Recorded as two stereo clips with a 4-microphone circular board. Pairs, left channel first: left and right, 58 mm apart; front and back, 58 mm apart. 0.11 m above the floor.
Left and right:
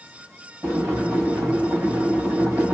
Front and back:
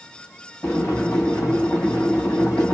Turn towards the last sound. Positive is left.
turn(degrees=-45)